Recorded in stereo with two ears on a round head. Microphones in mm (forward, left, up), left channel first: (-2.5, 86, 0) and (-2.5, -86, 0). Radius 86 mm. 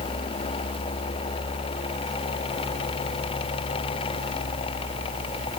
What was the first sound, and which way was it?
Only background noise.